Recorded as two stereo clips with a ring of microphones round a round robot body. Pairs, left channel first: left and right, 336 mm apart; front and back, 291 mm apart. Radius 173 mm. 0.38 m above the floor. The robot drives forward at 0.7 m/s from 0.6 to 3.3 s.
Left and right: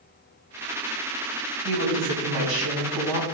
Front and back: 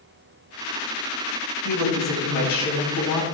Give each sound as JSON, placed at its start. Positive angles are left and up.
{"t": 1.6, "sound": "a woman speaking", "azimuth_deg": -65, "distance_m": 3.0}